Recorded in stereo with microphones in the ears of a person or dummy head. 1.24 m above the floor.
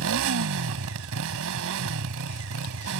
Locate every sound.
0.0 s a motorcycle: 70° right (ahead or behind)